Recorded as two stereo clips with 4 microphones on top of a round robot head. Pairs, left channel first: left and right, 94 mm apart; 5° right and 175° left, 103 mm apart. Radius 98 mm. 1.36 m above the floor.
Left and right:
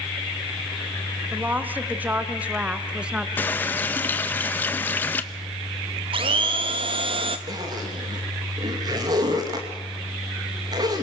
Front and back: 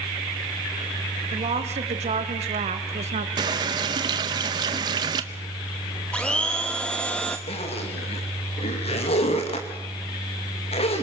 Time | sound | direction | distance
1.3 | a woman speaking | 160° right | 2.5 m
3.4 | a running tap | 150° left | 0.6 m
6.1 | a blender | 85° right | 0.8 m
7.5 | a zipper | 35° right | 2.5 m